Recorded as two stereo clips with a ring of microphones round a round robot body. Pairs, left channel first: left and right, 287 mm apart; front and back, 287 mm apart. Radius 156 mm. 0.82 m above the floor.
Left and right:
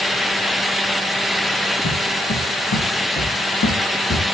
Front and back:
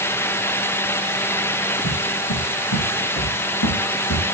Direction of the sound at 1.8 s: 40° left.